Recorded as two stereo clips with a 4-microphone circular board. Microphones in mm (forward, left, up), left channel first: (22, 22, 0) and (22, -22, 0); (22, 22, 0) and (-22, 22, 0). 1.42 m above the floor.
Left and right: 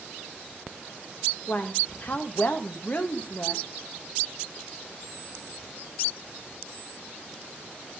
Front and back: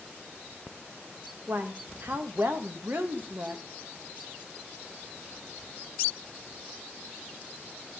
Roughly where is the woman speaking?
Behind left.